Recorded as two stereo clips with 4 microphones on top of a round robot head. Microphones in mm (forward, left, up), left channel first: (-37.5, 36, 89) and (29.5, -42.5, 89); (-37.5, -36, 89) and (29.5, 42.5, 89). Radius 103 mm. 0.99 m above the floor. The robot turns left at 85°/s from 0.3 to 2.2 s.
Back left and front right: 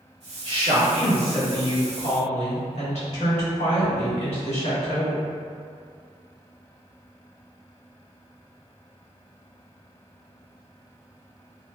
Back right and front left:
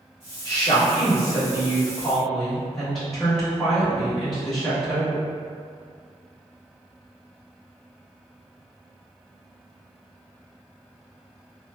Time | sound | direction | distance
0.5 | a woman speaking | 65° right | 1.5 m